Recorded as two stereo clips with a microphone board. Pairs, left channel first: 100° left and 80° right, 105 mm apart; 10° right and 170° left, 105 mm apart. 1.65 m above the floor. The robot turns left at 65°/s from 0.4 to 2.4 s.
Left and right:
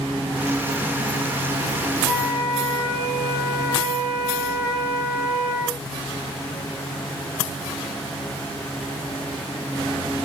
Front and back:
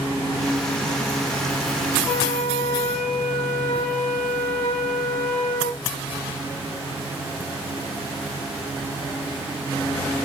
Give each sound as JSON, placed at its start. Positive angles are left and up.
{"t": 2.0, "sound": "a flute", "azimuth_deg": -115, "distance_m": 2.5}